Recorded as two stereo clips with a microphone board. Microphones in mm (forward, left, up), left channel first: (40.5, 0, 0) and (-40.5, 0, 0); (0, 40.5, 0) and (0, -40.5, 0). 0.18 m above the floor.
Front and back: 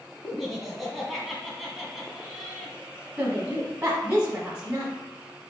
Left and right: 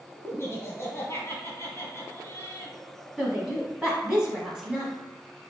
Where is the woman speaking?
150° right, 1.2 m.